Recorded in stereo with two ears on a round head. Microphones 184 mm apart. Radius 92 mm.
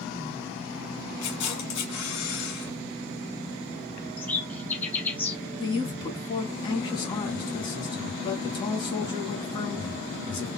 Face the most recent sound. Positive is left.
turn(degrees=25)  # may be behind; listen again after turning